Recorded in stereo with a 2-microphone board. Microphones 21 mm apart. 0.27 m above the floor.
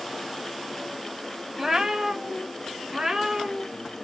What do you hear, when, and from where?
1.6 s a cat meowing: 25° right (ahead or behind), 0.6 m